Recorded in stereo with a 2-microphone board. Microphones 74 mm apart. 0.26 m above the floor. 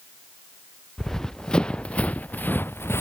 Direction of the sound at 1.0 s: 5° left (ahead or behind).